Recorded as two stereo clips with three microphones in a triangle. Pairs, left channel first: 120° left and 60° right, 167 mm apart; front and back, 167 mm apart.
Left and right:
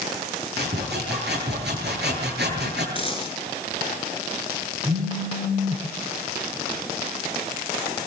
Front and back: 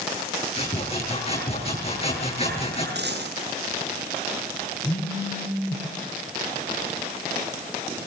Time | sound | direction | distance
0.6 | sawing | 55° right | 9 m
3.0 | a dropped coin | straight behind | 9 m
4.8 | a phone buzzing | 55° right | 5 m